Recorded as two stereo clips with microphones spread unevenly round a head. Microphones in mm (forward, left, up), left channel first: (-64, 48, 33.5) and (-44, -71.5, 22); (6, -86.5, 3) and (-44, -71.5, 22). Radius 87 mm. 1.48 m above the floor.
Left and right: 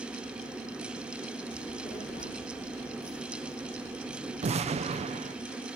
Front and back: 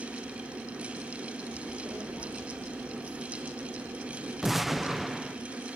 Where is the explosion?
115° right, 0.5 m.